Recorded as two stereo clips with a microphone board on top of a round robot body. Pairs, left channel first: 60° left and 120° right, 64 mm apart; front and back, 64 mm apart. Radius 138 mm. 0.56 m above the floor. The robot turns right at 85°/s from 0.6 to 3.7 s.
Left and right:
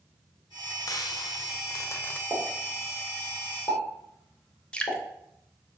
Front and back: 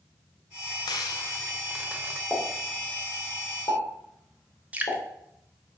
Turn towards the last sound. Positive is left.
turn(degrees=125)